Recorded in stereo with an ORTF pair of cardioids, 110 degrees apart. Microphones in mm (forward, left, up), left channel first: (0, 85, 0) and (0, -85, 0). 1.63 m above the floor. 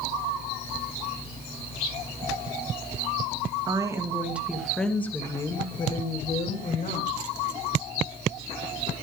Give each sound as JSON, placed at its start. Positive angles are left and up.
{"t": 3.7, "sound": "a woman speaking", "azimuth_deg": -25, "distance_m": 2.5}